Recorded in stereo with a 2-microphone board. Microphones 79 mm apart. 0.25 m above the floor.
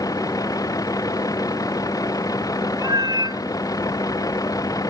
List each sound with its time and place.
0.0 s a vehicle: 50° left (ahead or behind)
2.8 s a cat meowing: 60° right (ahead or behind)